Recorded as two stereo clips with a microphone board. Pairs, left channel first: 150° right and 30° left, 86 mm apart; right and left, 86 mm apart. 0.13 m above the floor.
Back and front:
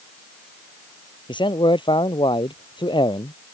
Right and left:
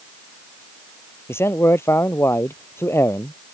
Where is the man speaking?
150° right.